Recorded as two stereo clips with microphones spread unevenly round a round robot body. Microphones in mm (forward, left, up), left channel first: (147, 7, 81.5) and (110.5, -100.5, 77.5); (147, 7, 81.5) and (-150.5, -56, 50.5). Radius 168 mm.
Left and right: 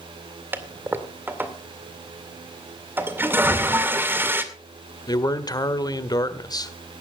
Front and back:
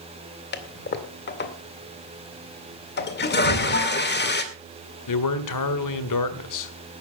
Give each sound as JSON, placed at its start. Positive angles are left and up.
{"t": 0.5, "sound": "a toilet flushing", "azimuth_deg": -40, "distance_m": 2.0}
{"t": 3.4, "sound": "an explosion", "azimuth_deg": 0, "distance_m": 5.0}
{"t": 5.1, "sound": "a man speaking", "azimuth_deg": 20, "distance_m": 1.9}